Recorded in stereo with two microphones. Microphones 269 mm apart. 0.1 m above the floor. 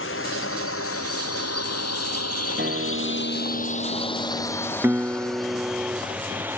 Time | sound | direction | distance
0.0 | a drone | 50° left (ahead or behind) | ?
2.6 | a guitar | 40° right (ahead or behind) | ?
4.8 | a guitar | 10° right (ahead or behind) | ?